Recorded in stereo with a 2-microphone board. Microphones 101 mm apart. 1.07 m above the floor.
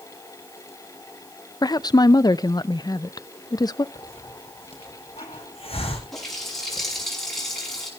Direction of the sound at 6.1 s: 5° left (ahead or behind).